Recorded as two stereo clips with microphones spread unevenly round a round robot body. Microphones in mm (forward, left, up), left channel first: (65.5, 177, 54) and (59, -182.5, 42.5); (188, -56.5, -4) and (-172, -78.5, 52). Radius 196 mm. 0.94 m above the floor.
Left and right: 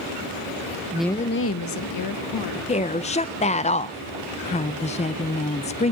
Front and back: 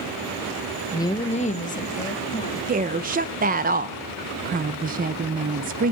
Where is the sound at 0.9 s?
35° right, 0.7 m; by 2.6 s 70° left, 2 m.